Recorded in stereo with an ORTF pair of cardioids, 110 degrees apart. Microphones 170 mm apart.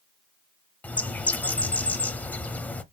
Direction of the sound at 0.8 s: 10° left.